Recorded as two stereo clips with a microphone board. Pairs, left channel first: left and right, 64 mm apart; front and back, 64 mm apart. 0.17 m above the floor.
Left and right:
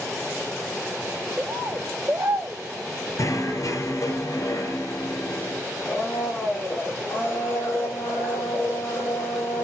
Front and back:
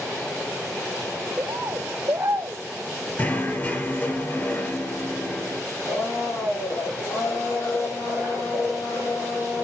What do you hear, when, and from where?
1.4 s a bird: 140° right, 0.9 m
3.2 s knocking: 60° left, 3 m
5.8 s a blender: 40° left, 4.5 m